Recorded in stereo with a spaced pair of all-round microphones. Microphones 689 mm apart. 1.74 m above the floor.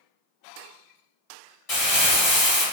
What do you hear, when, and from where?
1.7 s crumpling: 55° left (ahead or behind), 1.3 m